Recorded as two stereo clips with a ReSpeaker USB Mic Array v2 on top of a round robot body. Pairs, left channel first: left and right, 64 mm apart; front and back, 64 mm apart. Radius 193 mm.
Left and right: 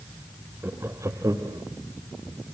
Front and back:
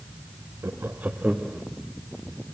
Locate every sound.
0.6 s laughter: 140° right, 1.4 m; by 1.6 s 100° right, 2 m